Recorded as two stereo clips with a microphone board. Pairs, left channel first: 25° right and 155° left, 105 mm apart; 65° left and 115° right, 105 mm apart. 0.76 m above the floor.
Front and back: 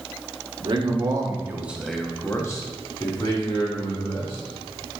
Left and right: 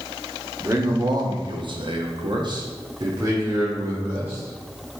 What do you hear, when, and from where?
0.6 s a man speaking: 170° right, 1.0 m; by 5.0 s 45° right, 2 m